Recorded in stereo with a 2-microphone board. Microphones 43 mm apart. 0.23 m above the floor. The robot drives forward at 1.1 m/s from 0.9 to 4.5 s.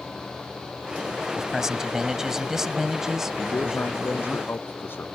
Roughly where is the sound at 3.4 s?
Left.